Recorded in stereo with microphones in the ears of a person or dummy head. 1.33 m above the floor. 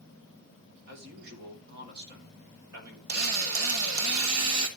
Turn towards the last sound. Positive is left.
turn(degrees=-75)  # may be behind; listen again after turning